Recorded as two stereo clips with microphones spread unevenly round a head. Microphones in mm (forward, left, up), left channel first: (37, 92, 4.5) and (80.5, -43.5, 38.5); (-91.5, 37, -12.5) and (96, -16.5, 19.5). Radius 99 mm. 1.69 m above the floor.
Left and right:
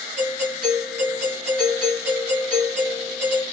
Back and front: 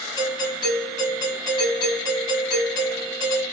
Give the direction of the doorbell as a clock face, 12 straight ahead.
4 o'clock.